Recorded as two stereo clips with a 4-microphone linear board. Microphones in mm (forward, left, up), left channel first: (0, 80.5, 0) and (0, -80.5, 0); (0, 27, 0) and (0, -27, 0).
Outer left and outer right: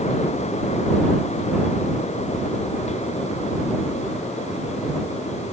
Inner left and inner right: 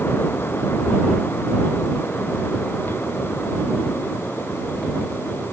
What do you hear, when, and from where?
Only background noise.